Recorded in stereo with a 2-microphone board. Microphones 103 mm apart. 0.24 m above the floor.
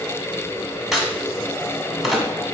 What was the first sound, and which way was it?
A crack, 5° right (ahead or behind).